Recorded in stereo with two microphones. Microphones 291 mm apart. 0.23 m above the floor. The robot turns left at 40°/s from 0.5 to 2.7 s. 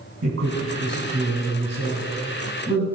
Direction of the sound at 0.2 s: 45° right (ahead or behind).